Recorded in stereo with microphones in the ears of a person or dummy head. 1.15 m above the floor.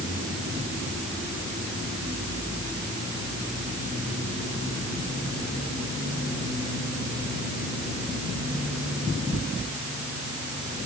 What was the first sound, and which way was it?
Only background noise.